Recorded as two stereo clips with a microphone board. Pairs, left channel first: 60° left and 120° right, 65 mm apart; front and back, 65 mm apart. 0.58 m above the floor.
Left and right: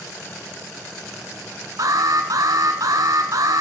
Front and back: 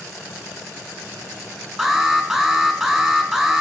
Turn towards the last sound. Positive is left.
turn(degrees=-100)